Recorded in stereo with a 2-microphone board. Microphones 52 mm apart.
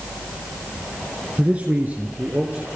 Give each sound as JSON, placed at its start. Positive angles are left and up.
{"t": 1.4, "sound": "a man speaking", "side_deg": -25, "distance_m": 2.0}